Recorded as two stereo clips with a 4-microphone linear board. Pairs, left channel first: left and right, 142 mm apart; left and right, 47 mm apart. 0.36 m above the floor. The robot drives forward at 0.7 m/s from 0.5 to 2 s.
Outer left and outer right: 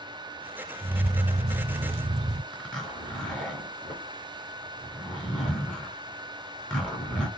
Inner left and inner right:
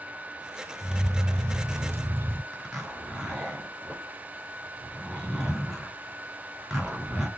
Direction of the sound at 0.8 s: 35° right (ahead or behind).